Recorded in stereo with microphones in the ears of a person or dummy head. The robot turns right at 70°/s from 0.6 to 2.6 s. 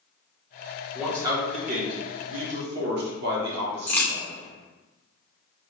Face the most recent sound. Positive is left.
turn(degrees=15)  # may be behind; listen again after turning